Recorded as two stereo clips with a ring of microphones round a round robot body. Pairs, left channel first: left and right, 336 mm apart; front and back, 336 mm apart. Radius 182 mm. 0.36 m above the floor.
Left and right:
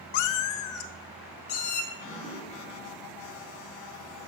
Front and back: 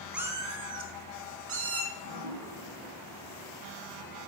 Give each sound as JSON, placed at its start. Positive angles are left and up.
{"t": 0.1, "sound": "a cat meowing", "azimuth_deg": 90, "distance_m": 0.7}
{"t": 1.9, "sound": "dripping", "azimuth_deg": 175, "distance_m": 6.0}